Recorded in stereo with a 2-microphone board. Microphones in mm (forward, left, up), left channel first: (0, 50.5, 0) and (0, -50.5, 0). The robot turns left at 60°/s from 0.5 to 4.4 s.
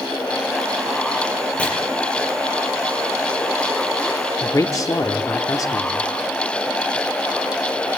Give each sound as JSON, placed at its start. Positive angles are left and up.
{"t": 1.6, "sound": "chopping", "side_deg": 15, "distance_m": 8.0}
{"t": 4.4, "sound": "a man speaking", "side_deg": 35, "distance_m": 0.8}